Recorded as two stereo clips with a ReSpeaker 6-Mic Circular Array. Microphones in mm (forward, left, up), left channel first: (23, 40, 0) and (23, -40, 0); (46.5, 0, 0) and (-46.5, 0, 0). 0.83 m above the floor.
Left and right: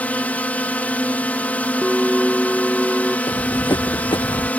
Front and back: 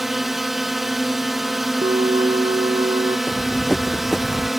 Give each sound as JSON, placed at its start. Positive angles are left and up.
{"t": 0.0, "sound": "a drone", "azimuth_deg": 95}
{"t": 1.8, "sound": "a bell", "azimuth_deg": 180}
{"t": 3.3, "sound": "running footsteps", "azimuth_deg": 80}